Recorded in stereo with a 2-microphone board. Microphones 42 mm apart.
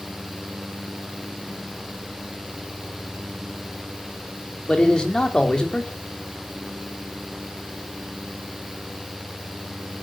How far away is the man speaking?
About 3.5 m.